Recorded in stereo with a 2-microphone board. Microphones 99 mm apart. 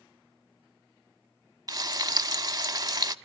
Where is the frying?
40° right (ahead or behind), 0.6 m.